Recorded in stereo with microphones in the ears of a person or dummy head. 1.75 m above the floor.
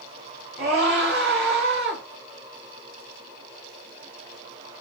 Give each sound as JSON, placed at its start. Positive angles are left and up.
{"t": 0.6, "sound": "a scream", "side_deg": -55, "distance_m": 3.0}